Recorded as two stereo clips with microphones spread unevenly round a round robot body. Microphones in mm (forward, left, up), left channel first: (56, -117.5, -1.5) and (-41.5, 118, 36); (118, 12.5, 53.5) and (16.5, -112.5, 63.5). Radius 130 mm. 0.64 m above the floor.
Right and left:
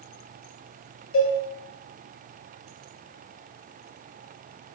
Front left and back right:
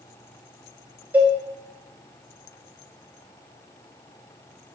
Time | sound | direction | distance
1.1 | a cowbell | 45° right | 0.9 m